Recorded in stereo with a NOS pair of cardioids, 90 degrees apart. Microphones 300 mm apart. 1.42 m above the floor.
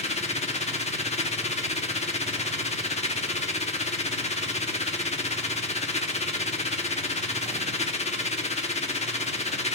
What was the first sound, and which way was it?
A machine running, 20° left.